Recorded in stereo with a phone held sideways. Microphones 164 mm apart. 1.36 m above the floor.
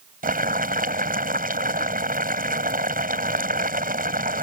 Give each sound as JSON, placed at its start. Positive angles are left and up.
{"t": 0.2, "sound": "boiling", "side_deg": -65}